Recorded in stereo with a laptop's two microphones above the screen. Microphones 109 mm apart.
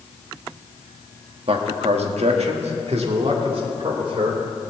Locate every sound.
1.5 s a man speaking: 60° right (ahead or behind), 1.2 m